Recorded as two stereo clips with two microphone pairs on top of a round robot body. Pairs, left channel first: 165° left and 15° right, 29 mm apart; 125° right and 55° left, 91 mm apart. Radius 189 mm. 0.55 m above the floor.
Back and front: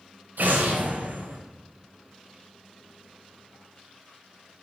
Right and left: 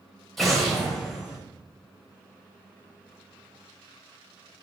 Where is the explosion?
35° right, 1.2 m.